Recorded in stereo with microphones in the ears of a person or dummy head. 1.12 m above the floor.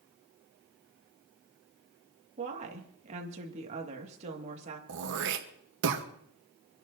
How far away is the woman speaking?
About 2 m.